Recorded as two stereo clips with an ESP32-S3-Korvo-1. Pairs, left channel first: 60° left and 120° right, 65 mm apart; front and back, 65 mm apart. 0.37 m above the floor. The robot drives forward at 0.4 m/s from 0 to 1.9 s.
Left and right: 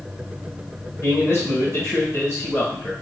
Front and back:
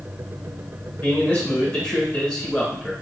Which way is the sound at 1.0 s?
50° left.